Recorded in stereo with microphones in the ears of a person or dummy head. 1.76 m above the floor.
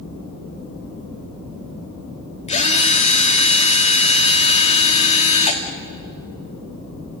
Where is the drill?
40° left (ahead or behind), 2.5 m.